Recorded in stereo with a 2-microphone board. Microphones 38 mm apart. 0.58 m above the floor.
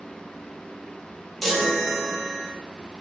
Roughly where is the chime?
Centre.